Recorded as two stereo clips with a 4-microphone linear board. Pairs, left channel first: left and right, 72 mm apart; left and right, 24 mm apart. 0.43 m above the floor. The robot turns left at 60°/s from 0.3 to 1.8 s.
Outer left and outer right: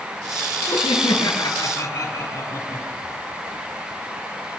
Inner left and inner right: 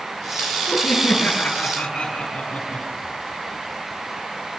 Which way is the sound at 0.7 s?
110° left.